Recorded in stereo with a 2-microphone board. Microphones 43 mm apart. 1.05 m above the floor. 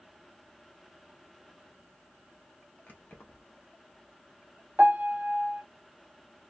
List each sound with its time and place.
2.9 s keys jangling: 45° left (ahead or behind), 0.9 m
4.8 s a piano: 35° right (ahead or behind), 0.7 m